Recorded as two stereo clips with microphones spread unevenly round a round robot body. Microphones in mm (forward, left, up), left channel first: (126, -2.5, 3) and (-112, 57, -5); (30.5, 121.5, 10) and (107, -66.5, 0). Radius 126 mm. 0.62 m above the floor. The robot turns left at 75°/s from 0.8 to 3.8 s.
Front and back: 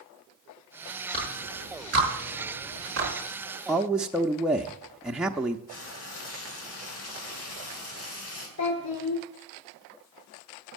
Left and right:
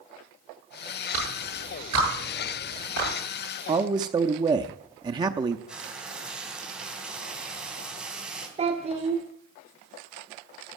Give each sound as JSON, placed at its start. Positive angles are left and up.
{"t": 1.1, "sound": "a clap", "azimuth_deg": -85, "distance_m": 10.0}
{"t": 3.7, "sound": "a man speaking", "azimuth_deg": -105, "distance_m": 0.6}
{"t": 5.7, "sound": "frying", "azimuth_deg": 20, "distance_m": 3.5}
{"t": 8.6, "sound": "a child speaking", "azimuth_deg": -15, "distance_m": 1.4}